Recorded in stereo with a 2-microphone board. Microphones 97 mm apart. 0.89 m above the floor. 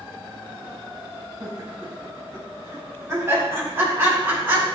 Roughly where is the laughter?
Right.